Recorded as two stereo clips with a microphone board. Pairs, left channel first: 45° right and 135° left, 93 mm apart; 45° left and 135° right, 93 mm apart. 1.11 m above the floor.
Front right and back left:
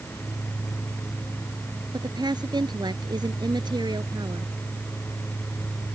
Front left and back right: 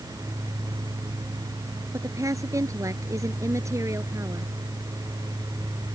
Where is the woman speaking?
175° left; by 4.5 s 170° left.